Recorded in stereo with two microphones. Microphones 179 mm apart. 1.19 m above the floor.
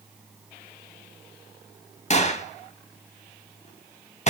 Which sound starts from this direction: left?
A gunshot, at 2.1 s.